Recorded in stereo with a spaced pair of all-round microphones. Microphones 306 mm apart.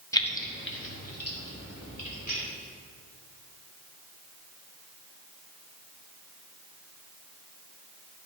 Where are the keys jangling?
10° left (ahead or behind), 0.8 m; by 2.4 s 55° left (ahead or behind), 4 m.